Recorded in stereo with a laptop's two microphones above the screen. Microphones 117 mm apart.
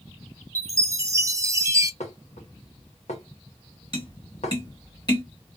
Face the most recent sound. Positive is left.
turn(degrees=35)  # may be behind; listen again after turning